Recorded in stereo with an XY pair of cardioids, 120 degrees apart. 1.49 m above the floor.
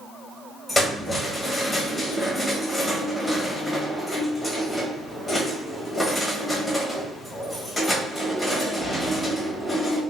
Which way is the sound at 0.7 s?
10° left.